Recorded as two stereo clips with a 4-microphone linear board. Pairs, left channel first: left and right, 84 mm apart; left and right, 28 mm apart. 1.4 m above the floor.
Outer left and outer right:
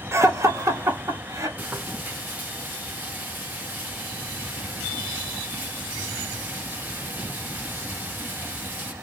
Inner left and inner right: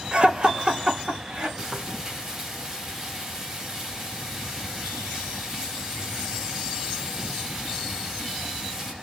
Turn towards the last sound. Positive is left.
turn(degrees=-20)  # may be behind; listen again after turning